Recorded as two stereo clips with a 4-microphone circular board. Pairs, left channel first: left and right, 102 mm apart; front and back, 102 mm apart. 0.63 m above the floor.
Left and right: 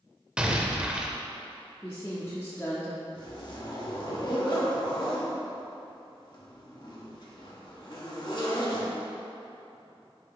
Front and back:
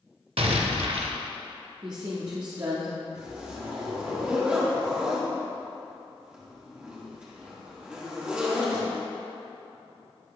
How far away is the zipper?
About 1.2 m.